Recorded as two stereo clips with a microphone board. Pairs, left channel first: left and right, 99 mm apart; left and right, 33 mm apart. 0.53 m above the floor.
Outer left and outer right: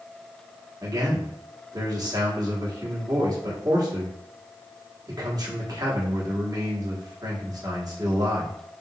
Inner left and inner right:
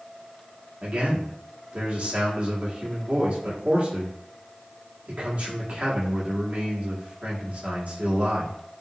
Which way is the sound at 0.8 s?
45° right (ahead or behind).